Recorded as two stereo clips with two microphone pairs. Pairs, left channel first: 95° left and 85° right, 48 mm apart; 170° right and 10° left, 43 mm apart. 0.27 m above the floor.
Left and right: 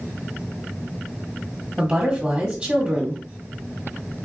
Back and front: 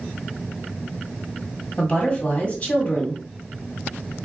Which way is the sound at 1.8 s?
145° right.